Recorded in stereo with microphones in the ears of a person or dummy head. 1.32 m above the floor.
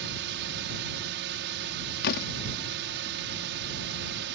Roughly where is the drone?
Right.